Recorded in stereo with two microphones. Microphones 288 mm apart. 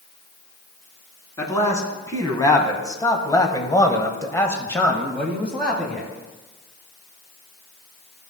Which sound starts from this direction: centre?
A man speaking, at 1.4 s.